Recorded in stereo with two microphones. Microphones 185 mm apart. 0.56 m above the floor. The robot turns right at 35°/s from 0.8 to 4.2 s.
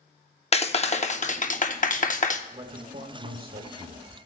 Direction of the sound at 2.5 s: 140° right.